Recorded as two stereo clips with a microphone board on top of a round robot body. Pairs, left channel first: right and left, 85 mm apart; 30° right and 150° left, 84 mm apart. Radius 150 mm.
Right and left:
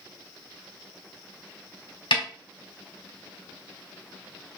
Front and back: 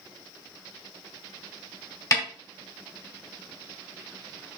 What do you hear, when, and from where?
2.1 s a snare drum: 85° right, 2.5 m